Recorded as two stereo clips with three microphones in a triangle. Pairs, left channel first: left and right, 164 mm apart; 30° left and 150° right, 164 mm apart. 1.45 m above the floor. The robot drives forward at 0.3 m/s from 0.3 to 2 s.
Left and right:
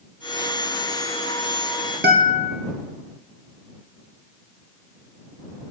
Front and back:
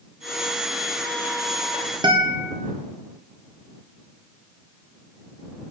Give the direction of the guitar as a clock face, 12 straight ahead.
3 o'clock.